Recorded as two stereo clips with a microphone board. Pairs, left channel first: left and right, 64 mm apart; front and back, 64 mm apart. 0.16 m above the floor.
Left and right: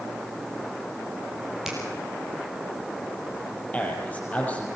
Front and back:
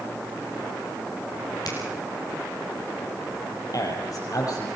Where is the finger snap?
5° right, 4 m.